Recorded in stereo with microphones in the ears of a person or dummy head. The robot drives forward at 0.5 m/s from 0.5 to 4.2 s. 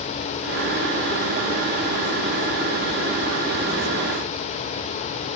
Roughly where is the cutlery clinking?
No cutlery clinking in this recording.